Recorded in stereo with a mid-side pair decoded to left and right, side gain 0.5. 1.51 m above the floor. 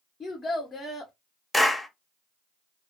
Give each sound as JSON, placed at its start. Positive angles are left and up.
{"t": 0.2, "sound": "a child speaking", "azimuth_deg": 40, "distance_m": 0.7}
{"t": 1.5, "sound": "a clap", "azimuth_deg": 10, "distance_m": 0.8}